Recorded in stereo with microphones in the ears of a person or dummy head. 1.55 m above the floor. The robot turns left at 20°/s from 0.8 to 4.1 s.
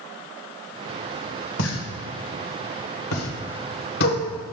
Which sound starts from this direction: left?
A pop, at 1.6 s.